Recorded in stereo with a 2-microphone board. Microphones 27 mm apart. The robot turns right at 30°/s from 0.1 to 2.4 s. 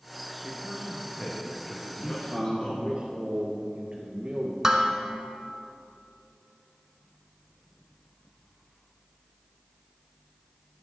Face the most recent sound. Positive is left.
turn(degrees=-15)  # may be behind; listen again after turning